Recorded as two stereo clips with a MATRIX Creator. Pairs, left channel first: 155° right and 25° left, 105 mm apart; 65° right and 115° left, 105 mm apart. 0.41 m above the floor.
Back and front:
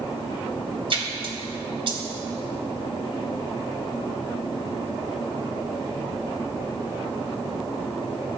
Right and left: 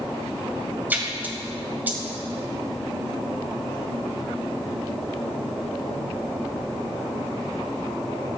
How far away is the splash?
About 1.9 m.